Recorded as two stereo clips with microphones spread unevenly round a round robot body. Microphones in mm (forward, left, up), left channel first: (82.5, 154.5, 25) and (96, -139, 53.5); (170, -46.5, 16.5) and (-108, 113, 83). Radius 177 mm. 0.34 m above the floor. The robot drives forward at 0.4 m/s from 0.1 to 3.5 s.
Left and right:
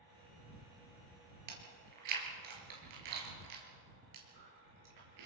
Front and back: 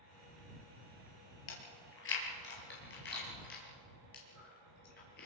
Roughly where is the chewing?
Right.